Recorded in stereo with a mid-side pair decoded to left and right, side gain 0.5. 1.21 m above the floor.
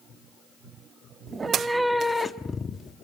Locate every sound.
1.3 s a cat meowing: 35° right, 1.6 m; by 3.0 s 45° left, 2 m